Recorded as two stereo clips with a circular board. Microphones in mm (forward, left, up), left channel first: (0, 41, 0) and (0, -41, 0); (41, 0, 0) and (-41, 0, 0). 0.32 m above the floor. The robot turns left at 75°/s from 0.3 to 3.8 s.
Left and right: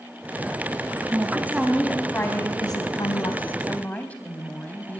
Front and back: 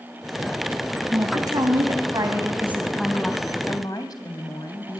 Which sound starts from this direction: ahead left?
A woman speaking, at 3.7 s.